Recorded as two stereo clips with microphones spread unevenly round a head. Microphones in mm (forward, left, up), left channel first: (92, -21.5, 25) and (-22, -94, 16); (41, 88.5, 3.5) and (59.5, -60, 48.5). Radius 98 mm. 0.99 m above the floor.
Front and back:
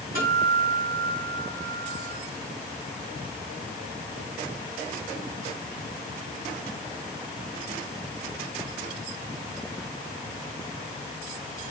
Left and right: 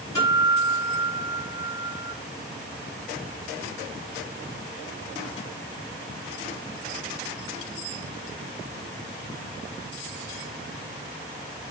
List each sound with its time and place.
0.1 s a guitar: 170° left, 6.5 m